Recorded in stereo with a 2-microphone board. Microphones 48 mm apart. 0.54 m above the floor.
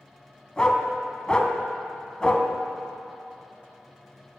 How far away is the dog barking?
About 0.9 m.